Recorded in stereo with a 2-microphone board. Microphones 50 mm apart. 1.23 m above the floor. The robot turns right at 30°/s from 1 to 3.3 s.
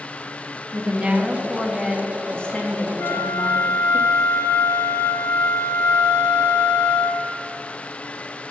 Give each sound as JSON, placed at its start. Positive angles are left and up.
{"t": 0.7, "sound": "a woman speaking", "azimuth_deg": -20, "distance_m": 1.8}
{"t": 3.0, "sound": "a flute", "side_deg": 70, "distance_m": 1.0}